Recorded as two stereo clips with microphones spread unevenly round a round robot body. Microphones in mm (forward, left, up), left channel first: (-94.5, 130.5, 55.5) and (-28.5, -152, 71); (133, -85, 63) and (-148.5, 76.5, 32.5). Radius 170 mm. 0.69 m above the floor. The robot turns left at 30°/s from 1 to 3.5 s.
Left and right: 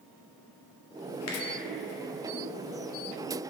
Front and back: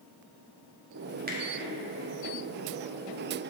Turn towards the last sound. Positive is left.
turn(degrees=30)